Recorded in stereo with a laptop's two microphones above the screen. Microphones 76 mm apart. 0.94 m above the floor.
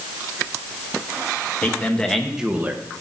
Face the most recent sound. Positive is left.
turn(degrees=-35)  # may be behind; listen again after turning